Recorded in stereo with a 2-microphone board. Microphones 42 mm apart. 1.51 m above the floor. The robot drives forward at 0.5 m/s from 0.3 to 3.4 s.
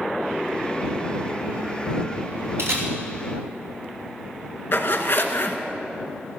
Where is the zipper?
55° left (ahead or behind), 1.4 m.